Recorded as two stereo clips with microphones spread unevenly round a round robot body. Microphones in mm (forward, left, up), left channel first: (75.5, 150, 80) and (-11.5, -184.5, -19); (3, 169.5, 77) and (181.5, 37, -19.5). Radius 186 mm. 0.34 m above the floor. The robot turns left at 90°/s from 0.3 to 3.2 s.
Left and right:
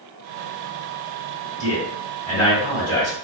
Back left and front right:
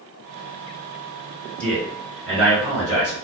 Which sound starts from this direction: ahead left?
A man speaking, at 1.6 s.